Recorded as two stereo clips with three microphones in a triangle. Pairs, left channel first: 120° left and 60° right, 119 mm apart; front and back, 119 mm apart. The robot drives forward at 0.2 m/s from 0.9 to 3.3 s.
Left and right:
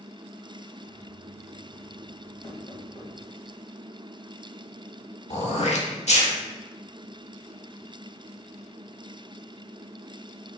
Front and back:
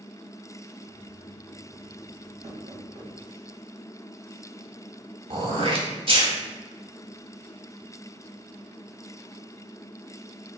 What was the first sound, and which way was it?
Knocking, 165° left.